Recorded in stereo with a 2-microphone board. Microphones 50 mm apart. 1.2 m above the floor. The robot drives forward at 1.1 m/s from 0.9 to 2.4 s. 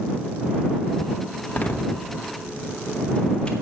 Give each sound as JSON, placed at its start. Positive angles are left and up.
{"t": 1.5, "sound": "a door slam", "side_deg": 35, "distance_m": 1.1}